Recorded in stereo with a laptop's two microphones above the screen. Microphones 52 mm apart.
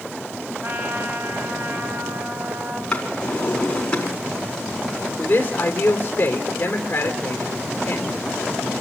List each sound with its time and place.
0.6 s a trumpet: 55° right (ahead or behind), 2.5 m
2.9 s a drawer: 20° left (ahead or behind), 4.5 m
5.2 s a man speaking: 35° left (ahead or behind), 3.5 m